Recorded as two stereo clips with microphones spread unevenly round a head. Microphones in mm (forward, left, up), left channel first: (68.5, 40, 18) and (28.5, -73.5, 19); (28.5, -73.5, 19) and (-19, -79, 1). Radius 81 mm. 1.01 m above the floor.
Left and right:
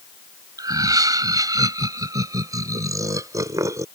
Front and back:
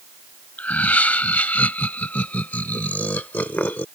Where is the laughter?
50° right; by 3.9 s 45° right.